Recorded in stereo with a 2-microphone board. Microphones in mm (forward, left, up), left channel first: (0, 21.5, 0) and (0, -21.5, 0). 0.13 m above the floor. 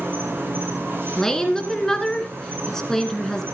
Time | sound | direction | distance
0.0 | an insect | 55° right (ahead or behind) | 4.5 m
1.2 | a woman speaking | 10° left (ahead or behind) | 1.9 m